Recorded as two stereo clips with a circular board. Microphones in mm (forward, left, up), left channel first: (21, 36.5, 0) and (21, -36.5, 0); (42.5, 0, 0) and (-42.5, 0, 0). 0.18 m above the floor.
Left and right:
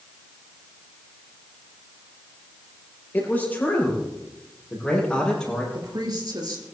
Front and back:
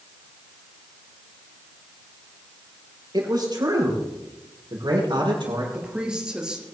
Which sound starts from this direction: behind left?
A man speaking, at 3.1 s.